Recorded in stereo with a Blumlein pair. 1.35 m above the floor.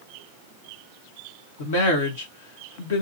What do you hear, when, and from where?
1.6 s a woman speaking: 55° left, 2.0 m